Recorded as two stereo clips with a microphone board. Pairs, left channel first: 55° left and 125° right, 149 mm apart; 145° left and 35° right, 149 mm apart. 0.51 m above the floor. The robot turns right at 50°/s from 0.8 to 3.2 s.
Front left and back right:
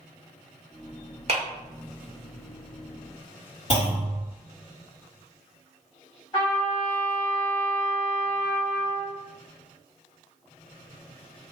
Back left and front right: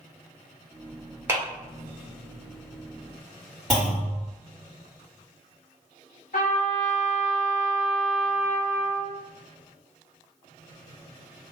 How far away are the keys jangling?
I don't hear keys jangling.